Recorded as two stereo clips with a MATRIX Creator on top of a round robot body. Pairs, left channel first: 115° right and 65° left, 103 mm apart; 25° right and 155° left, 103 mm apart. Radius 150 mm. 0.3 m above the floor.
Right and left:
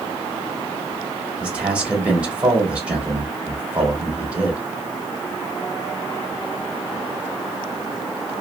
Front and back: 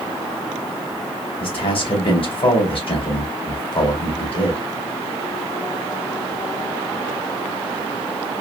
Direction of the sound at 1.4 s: 10° right.